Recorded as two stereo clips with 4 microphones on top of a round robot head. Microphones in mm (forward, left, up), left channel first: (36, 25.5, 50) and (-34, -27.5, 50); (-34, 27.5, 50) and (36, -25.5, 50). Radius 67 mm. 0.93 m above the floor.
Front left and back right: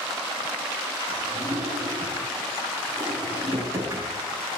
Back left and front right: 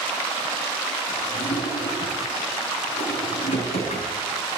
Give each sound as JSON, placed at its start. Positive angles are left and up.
{"t": 1.1, "sound": "a drawer", "azimuth_deg": 155, "distance_m": 5.5}